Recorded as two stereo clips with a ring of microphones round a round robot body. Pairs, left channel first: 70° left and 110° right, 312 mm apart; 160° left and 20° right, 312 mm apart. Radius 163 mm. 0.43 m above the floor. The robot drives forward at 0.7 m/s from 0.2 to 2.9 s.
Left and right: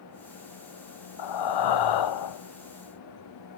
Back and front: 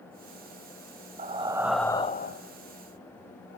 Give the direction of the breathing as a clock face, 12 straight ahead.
10 o'clock.